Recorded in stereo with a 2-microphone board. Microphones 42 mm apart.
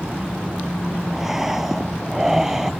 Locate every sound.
1.1 s breathing: 10° right (ahead or behind)